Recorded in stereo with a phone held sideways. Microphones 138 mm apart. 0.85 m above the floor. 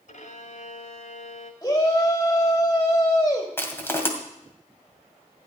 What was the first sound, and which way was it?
A violin, 60° left (ahead or behind).